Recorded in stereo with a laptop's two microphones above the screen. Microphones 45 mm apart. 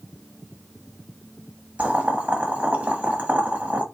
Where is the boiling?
30° right (ahead or behind), 1.0 m.